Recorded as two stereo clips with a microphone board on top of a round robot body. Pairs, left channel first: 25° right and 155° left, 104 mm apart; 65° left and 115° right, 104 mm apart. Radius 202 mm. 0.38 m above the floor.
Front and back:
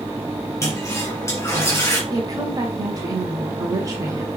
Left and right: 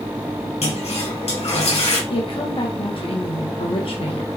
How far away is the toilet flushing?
About 4.5 m.